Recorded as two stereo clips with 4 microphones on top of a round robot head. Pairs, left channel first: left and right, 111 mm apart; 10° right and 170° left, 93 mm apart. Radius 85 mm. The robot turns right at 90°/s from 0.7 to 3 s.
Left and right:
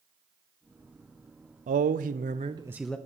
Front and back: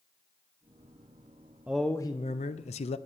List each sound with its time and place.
1.7 s a man speaking: 110° right, 0.6 m; by 3.0 s 10° left, 0.6 m